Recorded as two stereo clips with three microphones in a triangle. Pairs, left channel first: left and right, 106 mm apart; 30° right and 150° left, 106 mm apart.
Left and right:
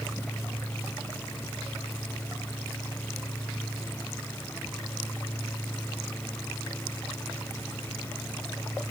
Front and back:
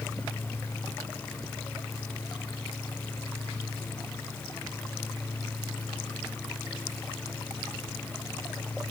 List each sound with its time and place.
Only background noise.